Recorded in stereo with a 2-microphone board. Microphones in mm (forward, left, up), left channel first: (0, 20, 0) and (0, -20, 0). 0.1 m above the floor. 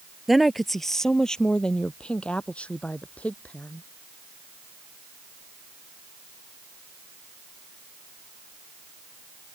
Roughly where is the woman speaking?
Centre.